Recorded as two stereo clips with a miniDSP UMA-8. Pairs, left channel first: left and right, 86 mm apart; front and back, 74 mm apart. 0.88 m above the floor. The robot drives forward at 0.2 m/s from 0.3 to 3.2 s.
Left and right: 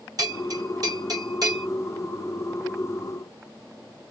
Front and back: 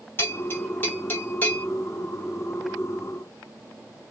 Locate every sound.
0.2 s a bell: 55° right, 1.9 m; by 1.7 s 60° right, 1.8 m